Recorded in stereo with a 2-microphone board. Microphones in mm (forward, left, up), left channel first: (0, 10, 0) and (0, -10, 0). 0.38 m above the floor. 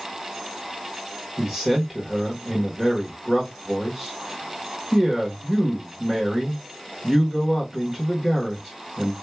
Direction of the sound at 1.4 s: 20° right (ahead or behind).